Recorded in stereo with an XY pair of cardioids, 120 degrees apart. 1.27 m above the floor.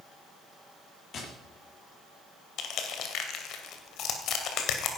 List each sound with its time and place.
1.1 s tapping: 50° left, 7.5 m
2.6 s crushing: 65° left, 2.5 m